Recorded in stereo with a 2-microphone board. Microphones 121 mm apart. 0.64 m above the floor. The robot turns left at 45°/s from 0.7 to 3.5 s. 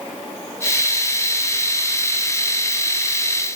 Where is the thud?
No thud in this recording.